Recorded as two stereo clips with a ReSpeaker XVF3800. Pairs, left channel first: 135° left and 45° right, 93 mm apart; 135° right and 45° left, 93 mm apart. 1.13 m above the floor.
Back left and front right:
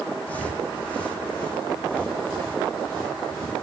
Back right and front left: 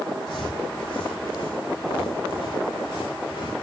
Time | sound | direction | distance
0.3 | footsteps | 155° right | 3 m